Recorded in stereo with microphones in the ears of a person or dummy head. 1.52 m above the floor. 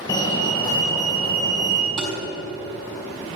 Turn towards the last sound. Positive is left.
turn(degrees=-40)  # may be behind; listen again after turning